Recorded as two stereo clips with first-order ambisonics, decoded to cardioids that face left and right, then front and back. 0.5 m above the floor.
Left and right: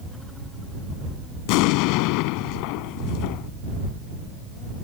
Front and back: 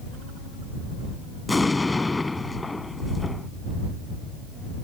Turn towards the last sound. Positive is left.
turn(degrees=80)